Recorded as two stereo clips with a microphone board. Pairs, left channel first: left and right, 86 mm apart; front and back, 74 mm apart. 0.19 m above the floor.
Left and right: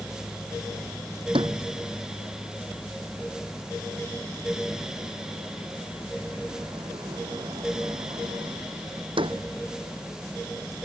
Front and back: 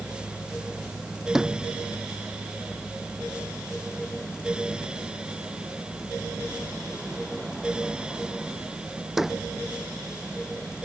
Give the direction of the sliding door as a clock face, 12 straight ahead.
3 o'clock.